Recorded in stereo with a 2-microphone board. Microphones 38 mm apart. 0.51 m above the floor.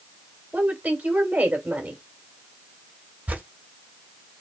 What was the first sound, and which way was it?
A woman speaking, 45° right (ahead or behind).